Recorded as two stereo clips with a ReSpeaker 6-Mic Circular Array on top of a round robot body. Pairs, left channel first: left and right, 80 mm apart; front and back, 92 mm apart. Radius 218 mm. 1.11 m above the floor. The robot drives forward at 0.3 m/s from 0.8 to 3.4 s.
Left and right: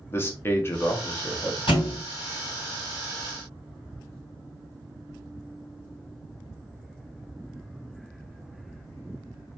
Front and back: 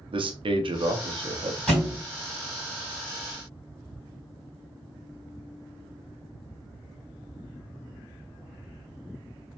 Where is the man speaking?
150° left, 0.7 m; by 1.6 s 160° left, 0.9 m.